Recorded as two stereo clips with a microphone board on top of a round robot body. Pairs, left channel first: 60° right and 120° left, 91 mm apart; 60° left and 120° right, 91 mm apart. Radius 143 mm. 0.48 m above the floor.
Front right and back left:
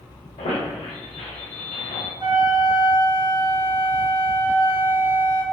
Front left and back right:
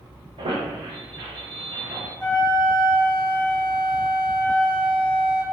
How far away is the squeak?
About 0.7 m.